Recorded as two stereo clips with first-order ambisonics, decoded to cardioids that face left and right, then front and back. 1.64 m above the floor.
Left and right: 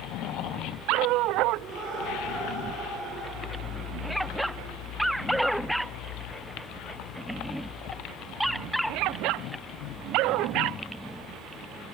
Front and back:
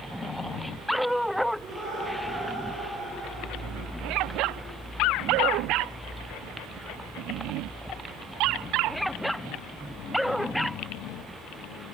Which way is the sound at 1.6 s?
105° right.